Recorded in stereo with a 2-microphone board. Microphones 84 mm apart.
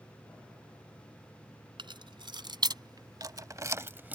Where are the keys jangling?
70° right (ahead or behind); by 4.2 s 20° right (ahead or behind).